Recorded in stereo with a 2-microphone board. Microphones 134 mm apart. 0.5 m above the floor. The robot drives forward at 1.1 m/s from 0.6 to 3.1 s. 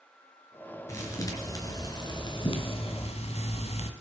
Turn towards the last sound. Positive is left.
turn(degrees=60)  # may be behind; listen again after turning